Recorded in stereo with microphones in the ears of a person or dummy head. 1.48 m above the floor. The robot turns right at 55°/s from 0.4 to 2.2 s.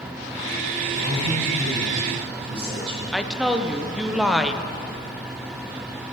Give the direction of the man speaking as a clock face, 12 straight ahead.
3 o'clock.